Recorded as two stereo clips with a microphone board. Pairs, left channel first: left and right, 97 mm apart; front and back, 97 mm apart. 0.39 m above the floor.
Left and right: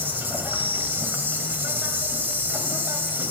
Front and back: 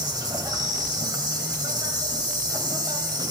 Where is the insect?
155° right, 2.5 m.